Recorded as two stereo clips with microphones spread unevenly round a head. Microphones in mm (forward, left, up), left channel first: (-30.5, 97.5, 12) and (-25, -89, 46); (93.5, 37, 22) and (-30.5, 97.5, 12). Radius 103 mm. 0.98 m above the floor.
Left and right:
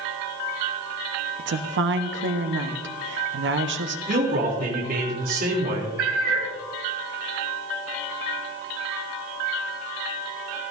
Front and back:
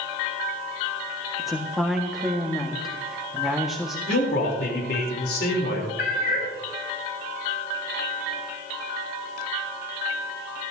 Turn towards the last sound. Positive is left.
turn(degrees=-60)